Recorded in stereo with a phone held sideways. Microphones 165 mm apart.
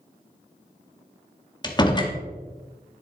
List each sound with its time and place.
1.6 s a door slam: 25° left (ahead or behind), 1.2 m